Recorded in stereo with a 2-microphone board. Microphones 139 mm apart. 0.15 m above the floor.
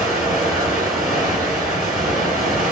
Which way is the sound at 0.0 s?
60° left (ahead or behind).